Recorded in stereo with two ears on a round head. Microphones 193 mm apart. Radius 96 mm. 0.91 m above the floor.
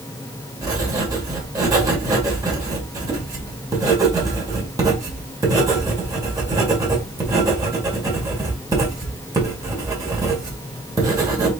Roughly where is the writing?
Centre.